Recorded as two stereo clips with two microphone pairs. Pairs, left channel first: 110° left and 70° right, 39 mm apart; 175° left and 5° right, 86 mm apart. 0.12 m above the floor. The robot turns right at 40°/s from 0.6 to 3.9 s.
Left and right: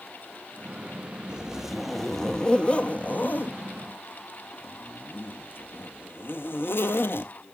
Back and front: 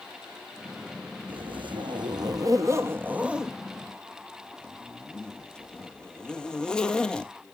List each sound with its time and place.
1.3 s a zipper: 5° right, 0.6 m; by 7.3 s 100° left, 0.6 m